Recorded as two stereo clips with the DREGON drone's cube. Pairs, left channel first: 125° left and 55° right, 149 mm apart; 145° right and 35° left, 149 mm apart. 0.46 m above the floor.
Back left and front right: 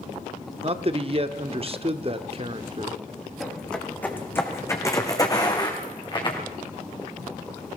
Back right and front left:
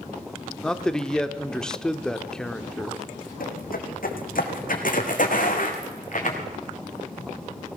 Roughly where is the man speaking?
Ahead right.